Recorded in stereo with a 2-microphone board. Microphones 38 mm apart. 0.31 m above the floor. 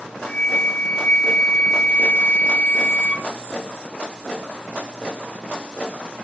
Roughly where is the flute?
Left.